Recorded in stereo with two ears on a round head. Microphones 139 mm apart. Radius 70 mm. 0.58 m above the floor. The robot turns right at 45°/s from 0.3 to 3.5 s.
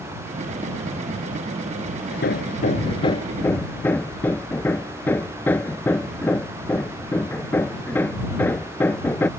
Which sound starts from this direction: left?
Hammering, at 2.1 s.